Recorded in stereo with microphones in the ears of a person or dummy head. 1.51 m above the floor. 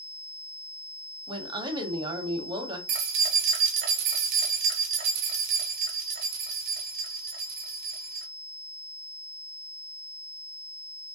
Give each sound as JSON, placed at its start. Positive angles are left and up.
{"t": 1.3, "sound": "a woman speaking", "side_deg": -25, "distance_m": 0.7}
{"t": 2.9, "sound": "keys jangling", "side_deg": -45, "distance_m": 0.6}